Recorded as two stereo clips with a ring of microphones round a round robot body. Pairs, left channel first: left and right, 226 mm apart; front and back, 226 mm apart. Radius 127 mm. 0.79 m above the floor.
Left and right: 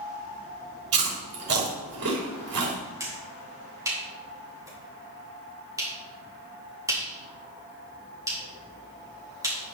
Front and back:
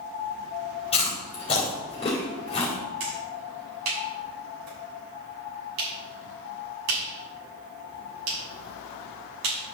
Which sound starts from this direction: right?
Chewing, at 0.9 s.